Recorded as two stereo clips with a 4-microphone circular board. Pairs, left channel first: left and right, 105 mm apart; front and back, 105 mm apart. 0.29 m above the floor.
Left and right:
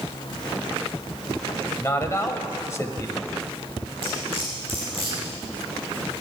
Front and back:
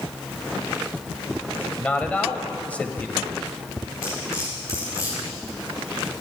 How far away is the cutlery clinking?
About 5.5 m.